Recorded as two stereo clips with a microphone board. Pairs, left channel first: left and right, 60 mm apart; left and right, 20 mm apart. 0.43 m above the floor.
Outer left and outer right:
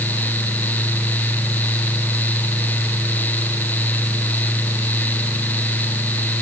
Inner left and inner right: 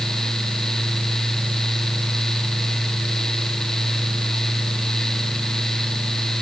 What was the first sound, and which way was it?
Only background noise.